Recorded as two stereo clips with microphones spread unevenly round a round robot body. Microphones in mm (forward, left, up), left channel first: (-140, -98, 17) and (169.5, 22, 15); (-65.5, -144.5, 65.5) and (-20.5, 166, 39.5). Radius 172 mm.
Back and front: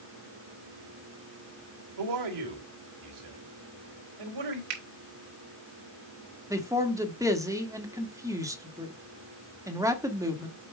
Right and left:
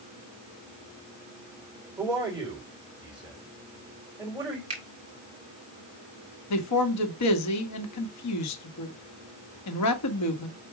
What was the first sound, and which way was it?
A man speaking, 5° right.